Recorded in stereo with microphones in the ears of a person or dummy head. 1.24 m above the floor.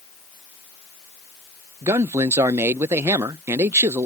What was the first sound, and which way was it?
A man speaking, 20° right (ahead or behind).